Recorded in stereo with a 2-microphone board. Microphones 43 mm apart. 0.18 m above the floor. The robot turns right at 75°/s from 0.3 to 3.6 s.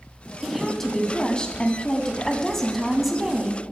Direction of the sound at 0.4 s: 5° right (ahead or behind).